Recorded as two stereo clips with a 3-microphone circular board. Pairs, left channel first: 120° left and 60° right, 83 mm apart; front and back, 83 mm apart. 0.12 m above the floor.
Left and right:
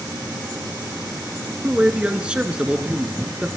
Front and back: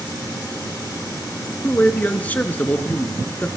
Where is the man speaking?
10° right, 1.1 m.